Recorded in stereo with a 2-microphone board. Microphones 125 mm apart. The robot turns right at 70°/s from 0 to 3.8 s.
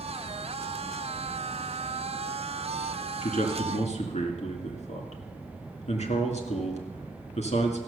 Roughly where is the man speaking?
Left.